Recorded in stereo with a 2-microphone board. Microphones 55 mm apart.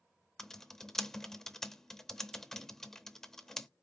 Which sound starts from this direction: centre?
Typing on a keyboard, at 0.4 s.